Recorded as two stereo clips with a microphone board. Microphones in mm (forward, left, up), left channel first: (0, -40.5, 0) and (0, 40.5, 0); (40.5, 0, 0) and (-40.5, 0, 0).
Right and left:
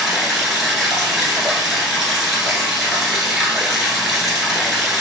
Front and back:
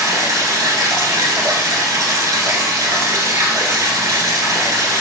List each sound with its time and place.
0.0 s running water: 175° left, 1.1 m